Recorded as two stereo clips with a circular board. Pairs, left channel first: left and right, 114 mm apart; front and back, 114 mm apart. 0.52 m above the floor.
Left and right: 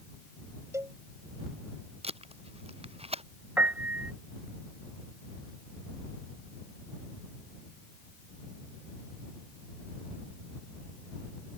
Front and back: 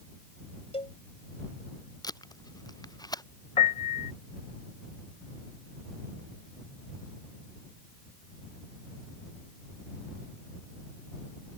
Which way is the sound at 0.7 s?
25° right.